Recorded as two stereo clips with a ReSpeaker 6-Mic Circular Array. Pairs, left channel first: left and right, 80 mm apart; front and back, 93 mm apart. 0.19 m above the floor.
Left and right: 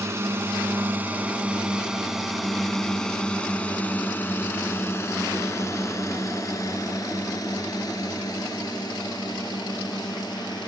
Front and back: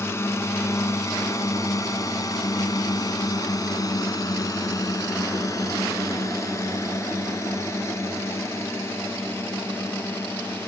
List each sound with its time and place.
0.0 s a drone: 50° right; by 10.7 s 65° left